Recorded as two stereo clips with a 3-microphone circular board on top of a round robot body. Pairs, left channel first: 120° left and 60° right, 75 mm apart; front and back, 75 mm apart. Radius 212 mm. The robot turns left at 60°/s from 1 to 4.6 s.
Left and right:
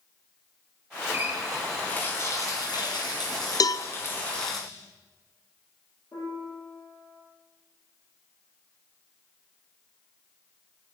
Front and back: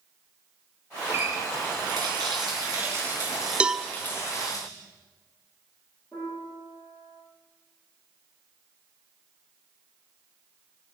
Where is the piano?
55° left, 9.5 m.